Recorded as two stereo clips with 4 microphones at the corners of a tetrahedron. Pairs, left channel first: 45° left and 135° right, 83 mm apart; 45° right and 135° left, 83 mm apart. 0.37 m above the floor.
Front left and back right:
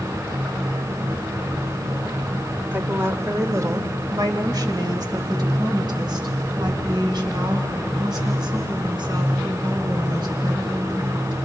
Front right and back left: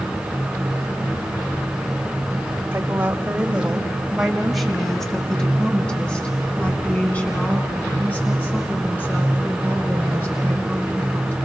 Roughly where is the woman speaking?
Behind.